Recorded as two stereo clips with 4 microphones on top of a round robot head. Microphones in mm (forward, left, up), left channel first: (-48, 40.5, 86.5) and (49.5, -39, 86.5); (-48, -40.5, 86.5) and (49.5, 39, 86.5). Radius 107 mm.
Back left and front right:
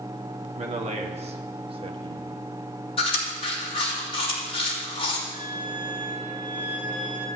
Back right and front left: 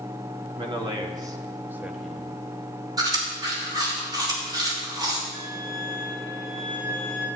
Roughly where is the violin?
Ahead.